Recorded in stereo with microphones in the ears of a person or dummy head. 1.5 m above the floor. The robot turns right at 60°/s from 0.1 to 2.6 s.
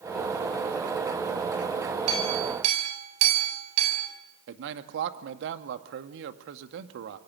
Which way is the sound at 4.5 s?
70° right (ahead or behind).